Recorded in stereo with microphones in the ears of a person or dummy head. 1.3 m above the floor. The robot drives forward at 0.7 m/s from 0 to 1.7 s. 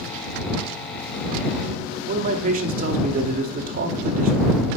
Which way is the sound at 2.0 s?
40° right (ahead or behind).